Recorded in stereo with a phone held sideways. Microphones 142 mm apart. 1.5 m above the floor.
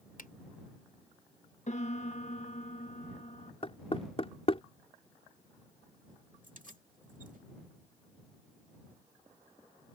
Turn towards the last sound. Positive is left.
turn(degrees=-70)  # may be behind; listen again after turning